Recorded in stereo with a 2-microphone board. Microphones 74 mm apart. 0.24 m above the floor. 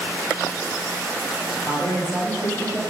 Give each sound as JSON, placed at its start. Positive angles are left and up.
{"t": 1.6, "sound": "a man speaking", "side_deg": -50, "distance_m": 2.0}